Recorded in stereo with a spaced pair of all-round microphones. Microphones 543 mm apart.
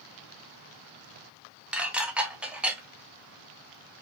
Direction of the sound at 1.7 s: Centre (ahead or behind).